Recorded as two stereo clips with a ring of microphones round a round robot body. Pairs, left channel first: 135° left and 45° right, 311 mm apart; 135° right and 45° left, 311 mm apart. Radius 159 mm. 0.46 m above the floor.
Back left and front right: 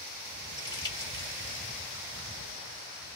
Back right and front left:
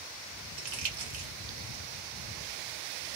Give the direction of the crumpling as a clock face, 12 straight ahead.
10 o'clock.